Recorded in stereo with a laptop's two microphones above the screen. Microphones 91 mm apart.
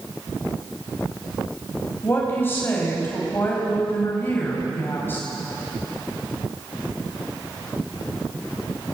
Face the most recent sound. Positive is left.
turn(degrees=25)  # may be behind; listen again after turning